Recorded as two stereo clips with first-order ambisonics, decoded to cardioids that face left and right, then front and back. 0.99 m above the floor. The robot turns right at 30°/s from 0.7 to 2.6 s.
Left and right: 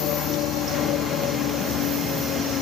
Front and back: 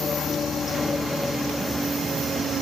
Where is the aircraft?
65° left; by 2.6 s 125° left.